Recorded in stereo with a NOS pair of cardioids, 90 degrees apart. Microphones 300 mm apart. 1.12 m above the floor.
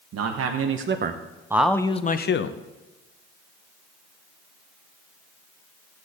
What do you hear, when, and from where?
0.1 s a man speaking: 60° right, 1.3 m; by 2.6 s 50° left, 1.0 m